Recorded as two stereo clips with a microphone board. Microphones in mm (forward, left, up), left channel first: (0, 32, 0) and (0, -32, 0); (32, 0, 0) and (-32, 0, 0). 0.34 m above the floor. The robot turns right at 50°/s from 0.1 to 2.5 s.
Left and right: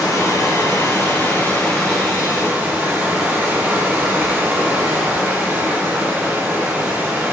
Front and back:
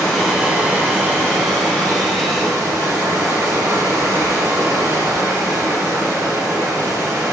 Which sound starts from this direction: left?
Running water, at 0.0 s.